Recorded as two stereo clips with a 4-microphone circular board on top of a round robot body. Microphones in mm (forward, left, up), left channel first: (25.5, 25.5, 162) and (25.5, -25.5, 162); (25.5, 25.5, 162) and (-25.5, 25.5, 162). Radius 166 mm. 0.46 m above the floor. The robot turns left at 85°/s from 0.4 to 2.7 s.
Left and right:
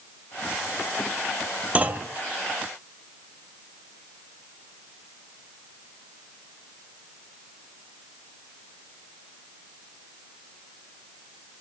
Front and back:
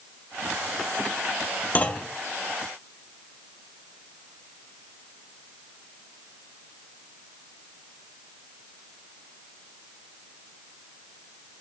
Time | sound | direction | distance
1.8 | a clunk | 35° right | 0.6 m